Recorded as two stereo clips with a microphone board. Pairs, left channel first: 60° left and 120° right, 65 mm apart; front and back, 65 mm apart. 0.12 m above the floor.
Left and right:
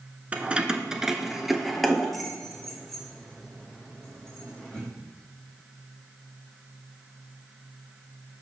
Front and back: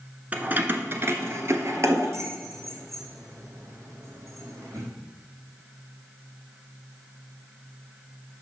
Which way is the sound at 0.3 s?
155° right.